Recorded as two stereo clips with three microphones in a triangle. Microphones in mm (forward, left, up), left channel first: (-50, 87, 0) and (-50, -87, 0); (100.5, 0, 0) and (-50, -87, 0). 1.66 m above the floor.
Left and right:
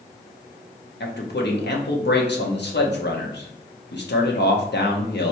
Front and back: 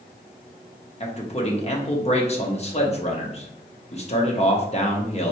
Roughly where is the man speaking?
Left.